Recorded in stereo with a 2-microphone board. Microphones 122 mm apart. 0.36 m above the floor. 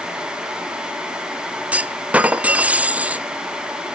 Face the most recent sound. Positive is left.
turn(degrees=-10)  # may be behind; listen again after turning